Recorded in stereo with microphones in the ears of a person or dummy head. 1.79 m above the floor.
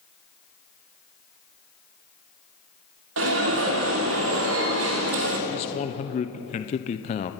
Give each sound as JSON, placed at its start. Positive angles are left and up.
{"t": 3.2, "sound": "an alarm", "side_deg": -70, "distance_m": 3.0}
{"t": 5.5, "sound": "a man speaking", "side_deg": 35, "distance_m": 0.8}